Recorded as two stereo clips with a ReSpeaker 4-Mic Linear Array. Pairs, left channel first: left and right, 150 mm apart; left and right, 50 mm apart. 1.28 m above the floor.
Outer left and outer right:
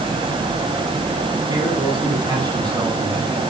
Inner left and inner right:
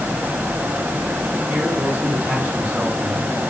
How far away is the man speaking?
About 9.5 m.